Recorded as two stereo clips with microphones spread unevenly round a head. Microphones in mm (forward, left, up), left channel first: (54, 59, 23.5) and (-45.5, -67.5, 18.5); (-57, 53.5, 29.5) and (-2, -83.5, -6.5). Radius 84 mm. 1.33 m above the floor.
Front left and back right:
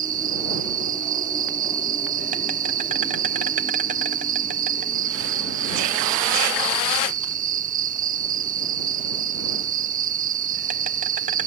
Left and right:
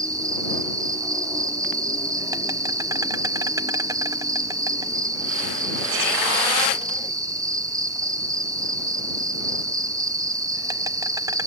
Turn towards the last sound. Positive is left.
turn(degrees=-115)